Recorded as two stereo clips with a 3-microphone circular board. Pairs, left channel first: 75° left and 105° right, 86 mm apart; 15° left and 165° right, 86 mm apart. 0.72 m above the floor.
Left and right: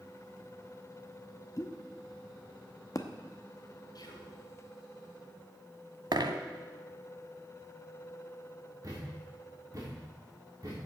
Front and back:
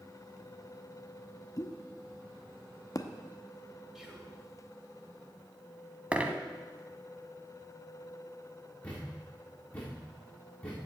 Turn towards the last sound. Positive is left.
turn(degrees=-55)